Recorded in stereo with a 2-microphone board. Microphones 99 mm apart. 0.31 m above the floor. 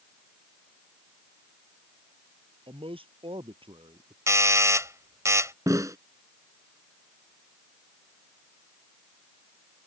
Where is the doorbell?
35° right (ahead or behind).